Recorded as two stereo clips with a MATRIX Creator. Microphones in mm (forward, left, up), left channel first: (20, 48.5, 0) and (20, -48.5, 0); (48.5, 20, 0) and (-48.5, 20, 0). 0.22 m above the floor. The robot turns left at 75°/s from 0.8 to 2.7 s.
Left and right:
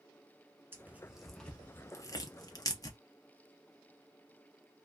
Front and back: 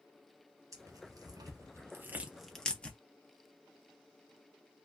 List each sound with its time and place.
0.7 s tearing paper: 145° right, 0.7 m; by 3.0 s 75° left, 0.7 m